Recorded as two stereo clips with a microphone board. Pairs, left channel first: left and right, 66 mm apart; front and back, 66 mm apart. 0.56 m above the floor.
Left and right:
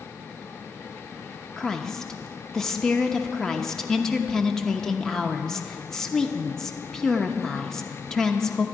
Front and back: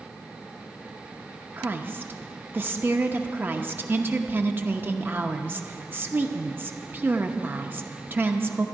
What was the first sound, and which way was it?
A woman speaking, 165° left.